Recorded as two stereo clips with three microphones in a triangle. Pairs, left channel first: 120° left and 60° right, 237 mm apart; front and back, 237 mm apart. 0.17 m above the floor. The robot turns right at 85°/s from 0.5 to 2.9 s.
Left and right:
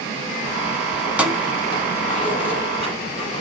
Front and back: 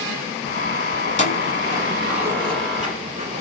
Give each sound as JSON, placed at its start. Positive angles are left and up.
{"t": 1.0, "sound": "keys jangling", "azimuth_deg": 5, "distance_m": 0.8}